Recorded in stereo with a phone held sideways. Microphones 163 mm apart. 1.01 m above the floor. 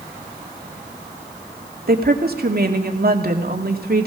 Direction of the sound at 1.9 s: 70° right (ahead or behind).